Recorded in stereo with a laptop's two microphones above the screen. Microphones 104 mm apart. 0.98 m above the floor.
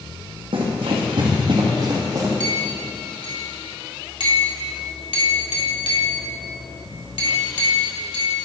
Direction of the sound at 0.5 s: 65° right (ahead or behind).